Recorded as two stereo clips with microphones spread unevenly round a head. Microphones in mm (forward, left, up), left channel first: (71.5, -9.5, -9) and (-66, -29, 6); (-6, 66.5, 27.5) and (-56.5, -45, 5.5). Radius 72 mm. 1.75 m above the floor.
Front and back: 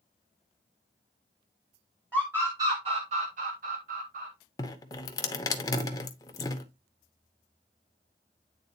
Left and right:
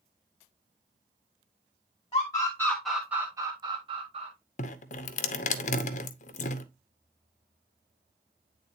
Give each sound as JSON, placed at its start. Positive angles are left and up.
{"t": 2.1, "sound": "a scream", "azimuth_deg": 110, "distance_m": 1.3}
{"t": 4.6, "sound": "dripping", "azimuth_deg": 80, "distance_m": 0.8}